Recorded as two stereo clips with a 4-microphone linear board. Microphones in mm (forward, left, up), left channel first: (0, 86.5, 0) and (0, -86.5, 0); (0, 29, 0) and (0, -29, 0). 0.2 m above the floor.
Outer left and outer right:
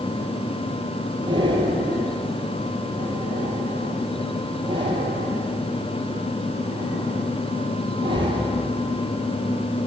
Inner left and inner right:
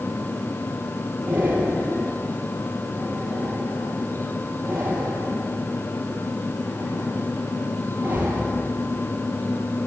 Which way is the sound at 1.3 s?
30° right (ahead or behind).